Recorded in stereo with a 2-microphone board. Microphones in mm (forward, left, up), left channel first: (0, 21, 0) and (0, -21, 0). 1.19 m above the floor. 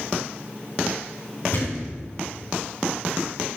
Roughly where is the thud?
Left.